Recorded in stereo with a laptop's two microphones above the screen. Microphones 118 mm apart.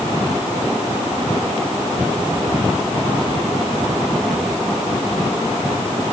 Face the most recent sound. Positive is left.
No sound to turn to.